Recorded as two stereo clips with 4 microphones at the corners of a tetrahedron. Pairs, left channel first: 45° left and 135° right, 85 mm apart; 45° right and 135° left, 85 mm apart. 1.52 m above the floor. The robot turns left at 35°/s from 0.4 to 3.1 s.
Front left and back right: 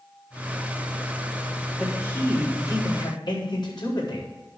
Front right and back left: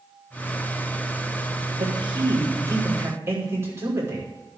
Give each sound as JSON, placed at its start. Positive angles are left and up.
{"t": 1.8, "sound": "a man speaking", "azimuth_deg": 120, "distance_m": 5.5}